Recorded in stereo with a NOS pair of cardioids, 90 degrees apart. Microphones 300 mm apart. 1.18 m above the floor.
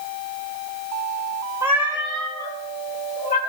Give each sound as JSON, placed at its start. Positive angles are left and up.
{"t": 1.6, "sound": "a cat meowing", "azimuth_deg": -10, "distance_m": 2.5}